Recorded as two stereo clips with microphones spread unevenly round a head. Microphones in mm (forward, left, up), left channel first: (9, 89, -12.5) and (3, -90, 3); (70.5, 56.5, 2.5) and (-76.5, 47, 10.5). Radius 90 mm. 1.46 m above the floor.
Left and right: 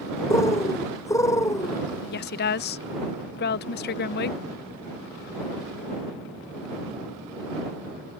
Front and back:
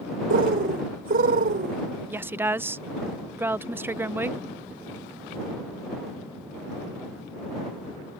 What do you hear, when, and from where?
0.3 s a bird: 165° left
2.1 s a woman speaking: 115° left